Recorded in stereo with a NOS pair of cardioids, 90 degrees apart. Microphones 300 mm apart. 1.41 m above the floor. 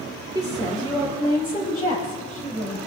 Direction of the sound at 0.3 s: 10° right.